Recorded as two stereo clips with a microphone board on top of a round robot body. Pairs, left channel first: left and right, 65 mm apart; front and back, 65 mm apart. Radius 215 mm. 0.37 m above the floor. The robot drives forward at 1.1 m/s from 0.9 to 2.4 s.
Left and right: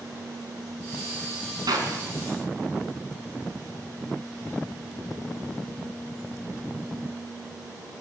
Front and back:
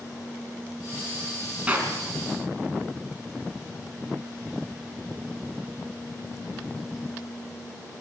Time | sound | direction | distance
1.7 | a clap | 110° right | 5 m